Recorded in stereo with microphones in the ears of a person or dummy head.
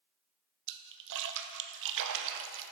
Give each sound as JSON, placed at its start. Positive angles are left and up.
{"t": 0.7, "sound": "a splash", "side_deg": -60, "distance_m": 0.5}